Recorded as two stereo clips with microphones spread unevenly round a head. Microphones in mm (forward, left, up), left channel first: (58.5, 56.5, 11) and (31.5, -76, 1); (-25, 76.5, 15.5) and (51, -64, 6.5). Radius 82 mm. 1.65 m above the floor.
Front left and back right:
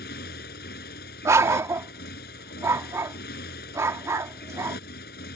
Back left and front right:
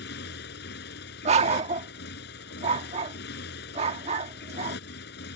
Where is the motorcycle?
100° left.